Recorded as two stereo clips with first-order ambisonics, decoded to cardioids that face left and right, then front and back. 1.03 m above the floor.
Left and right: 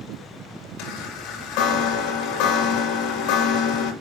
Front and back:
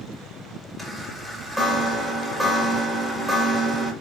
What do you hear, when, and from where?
0.8 s a chime: 90° left, 2 m